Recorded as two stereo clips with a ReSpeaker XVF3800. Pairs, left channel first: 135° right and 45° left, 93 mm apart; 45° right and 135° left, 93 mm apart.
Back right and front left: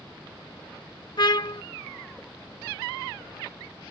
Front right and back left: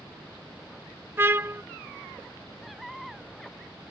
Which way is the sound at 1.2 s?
165° right.